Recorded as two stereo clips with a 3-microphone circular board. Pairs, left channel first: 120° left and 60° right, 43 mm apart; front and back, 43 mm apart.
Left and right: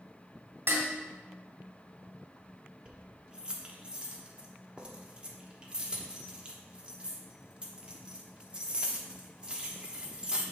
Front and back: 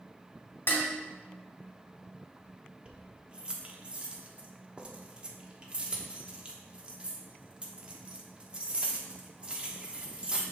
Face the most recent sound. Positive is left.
turn(degrees=-120)